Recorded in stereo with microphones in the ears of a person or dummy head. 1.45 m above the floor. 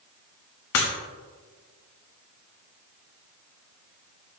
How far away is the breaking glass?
About 1.4 m.